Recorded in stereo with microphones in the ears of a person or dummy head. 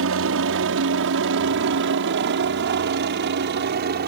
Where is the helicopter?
65° right (ahead or behind); by 4.1 s 50° right (ahead or behind).